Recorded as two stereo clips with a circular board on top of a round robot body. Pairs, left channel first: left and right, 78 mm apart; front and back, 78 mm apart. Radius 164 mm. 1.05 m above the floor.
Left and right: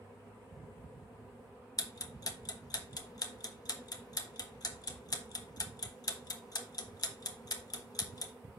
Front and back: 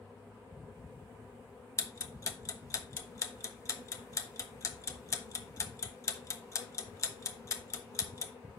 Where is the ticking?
50° left, 1.0 m.